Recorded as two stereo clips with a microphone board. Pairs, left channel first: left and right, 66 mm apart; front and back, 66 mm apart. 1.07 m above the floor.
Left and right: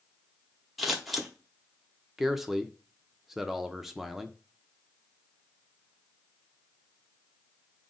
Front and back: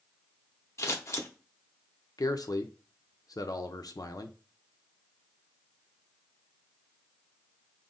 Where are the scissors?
Straight ahead, 0.8 m.